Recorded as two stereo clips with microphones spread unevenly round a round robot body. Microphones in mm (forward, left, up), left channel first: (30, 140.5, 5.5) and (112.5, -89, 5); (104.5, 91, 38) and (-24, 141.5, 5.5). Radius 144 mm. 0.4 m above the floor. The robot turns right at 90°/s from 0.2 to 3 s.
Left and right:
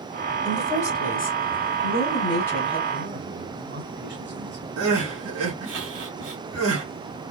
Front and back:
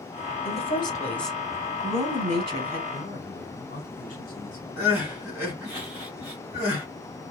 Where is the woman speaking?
5° left, 1.7 m; by 2.8 s 140° right, 1.7 m.